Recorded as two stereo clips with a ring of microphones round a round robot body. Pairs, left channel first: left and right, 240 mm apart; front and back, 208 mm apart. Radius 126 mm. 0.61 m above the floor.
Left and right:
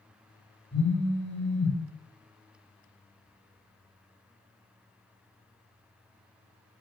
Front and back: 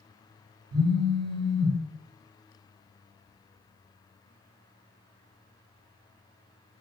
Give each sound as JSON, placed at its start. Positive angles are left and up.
{"t": 0.7, "sound": "a phone buzzing", "azimuth_deg": 175, "distance_m": 0.7}